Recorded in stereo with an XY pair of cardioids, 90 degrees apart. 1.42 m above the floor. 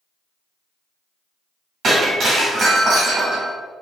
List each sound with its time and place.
1.8 s breaking glass: 65° right, 1.7 m